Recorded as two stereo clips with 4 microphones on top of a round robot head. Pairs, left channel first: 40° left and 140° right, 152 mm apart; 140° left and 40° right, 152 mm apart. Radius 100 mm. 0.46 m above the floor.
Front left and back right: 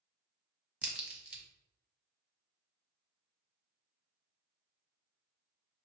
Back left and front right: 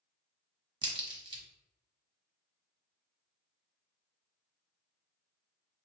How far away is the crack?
About 1.1 m.